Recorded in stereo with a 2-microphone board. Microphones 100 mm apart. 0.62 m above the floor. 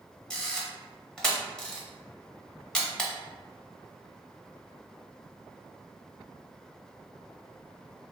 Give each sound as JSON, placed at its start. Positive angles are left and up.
{"t": 0.3, "sound": "a camera shutter", "side_deg": 5, "distance_m": 0.8}